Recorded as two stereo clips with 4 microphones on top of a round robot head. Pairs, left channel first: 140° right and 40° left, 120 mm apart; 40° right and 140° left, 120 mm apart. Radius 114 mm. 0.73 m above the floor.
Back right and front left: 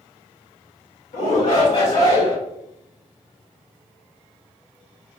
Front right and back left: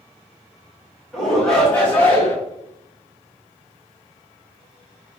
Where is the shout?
130° right, 2.5 m; by 2.4 s 110° right, 3 m.